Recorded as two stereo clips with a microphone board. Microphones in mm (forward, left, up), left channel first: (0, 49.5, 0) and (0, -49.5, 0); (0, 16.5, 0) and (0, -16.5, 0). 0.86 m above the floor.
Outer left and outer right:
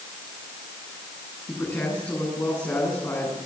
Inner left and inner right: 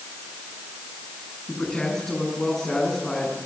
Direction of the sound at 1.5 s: 25° left (ahead or behind).